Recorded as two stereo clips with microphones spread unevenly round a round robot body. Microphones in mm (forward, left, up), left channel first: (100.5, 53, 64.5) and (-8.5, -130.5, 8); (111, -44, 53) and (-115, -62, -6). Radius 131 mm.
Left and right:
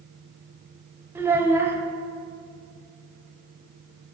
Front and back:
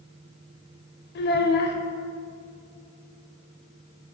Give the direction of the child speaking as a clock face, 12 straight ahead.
1 o'clock.